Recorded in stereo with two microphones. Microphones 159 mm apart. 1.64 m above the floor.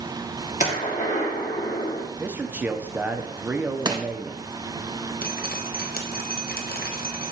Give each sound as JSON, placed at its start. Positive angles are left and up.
{"t": 0.6, "sound": "a gunshot", "side_deg": 50, "distance_m": 1.9}
{"t": 2.2, "sound": "a man speaking", "side_deg": -10, "distance_m": 0.7}
{"t": 3.9, "sound": "crushing", "side_deg": -25, "distance_m": 0.8}
{"t": 5.2, "sound": "dripping", "side_deg": 70, "distance_m": 1.0}